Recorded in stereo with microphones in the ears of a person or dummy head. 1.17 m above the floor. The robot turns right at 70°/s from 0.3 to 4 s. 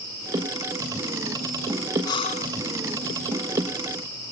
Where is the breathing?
25° left; by 2.5 s 60° left.